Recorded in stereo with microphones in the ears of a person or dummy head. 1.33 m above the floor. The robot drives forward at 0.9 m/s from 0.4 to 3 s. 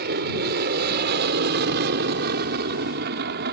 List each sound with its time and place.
0.0 s an aircraft: 50° right (ahead or behind); by 3.5 s 55° right (ahead or behind)